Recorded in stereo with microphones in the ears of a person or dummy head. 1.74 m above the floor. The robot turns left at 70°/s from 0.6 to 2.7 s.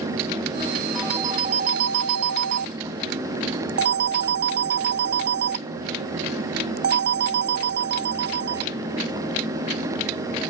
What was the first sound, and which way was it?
A phone ringing, straight ahead.